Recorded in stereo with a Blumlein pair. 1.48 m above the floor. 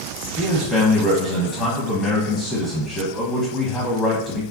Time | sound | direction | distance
0.4 | a man speaking | 10° left | 0.7 m